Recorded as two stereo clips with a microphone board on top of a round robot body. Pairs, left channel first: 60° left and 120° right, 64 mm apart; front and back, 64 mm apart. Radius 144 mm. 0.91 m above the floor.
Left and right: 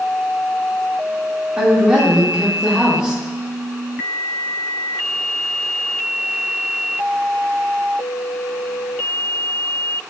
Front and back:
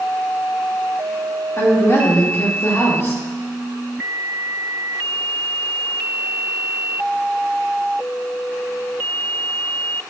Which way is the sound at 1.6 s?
45° right.